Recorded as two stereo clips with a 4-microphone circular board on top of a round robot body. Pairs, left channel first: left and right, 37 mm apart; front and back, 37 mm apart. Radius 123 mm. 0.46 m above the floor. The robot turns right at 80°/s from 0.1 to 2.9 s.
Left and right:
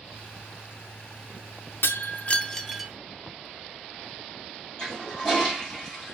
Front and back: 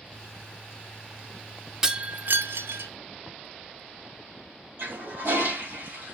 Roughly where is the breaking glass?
Left.